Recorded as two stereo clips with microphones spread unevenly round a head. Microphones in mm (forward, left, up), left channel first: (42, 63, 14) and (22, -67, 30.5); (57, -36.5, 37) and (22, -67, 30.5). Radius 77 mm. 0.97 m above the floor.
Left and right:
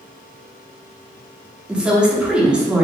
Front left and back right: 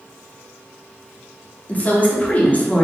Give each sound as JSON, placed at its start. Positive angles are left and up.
{"t": 1.7, "sound": "a woman speaking", "azimuth_deg": -15, "distance_m": 1.3}